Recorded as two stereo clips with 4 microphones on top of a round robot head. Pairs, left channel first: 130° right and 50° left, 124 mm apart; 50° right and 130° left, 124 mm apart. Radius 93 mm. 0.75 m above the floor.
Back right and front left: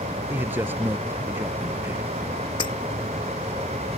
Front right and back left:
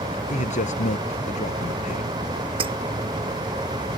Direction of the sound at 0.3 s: 25° right.